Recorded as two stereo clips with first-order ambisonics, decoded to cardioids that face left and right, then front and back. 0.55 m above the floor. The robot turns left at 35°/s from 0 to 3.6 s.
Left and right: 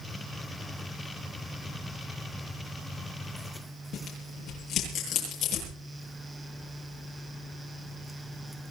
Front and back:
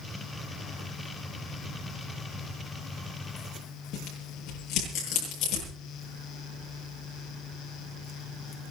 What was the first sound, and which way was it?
Tearing paper, 35° left.